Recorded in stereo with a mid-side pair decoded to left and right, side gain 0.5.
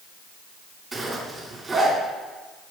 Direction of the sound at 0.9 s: 25° right.